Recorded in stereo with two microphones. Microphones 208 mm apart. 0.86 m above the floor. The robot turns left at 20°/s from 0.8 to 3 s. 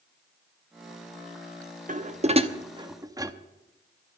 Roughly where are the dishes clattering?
Right.